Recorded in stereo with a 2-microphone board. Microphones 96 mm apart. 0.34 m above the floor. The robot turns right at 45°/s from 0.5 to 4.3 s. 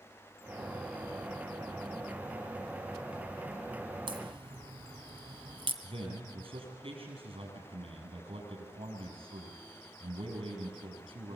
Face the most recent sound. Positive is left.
turn(degrees=-80)